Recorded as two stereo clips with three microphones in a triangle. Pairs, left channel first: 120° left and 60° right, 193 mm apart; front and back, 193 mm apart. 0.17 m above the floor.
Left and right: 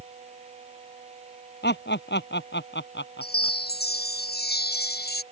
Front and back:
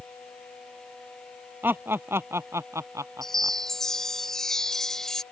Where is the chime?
90° left.